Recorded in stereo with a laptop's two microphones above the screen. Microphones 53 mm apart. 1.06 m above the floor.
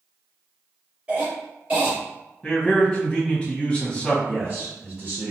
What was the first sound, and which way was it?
A cough, 20° right (ahead or behind).